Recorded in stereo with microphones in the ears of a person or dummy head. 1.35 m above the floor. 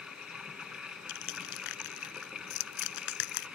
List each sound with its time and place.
0.0 s running water: centre (ahead or behind)
1.1 s crushing: 75° left (ahead or behind)